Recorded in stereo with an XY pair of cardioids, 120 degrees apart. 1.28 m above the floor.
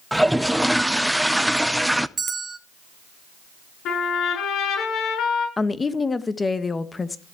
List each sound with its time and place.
0.1 s a toilet flushing: 5° right, 0.7 m
2.2 s a bell: 25° right, 1.4 m
3.9 s a trumpet: 65° left, 8 m
5.6 s a woman speaking: 25° left, 1.3 m